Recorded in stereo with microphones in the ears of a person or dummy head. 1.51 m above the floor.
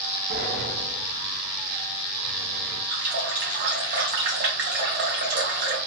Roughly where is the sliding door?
Right.